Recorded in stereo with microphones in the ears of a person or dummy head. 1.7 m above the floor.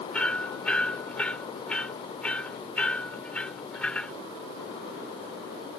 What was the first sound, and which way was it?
Hammering, 10° left (ahead or behind).